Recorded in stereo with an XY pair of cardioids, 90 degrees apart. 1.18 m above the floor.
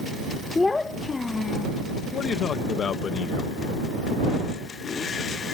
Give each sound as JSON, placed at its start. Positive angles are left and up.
{"t": 0.6, "sound": "a child speaking", "azimuth_deg": 25}
{"t": 2.1, "sound": "a man speaking", "azimuth_deg": 60}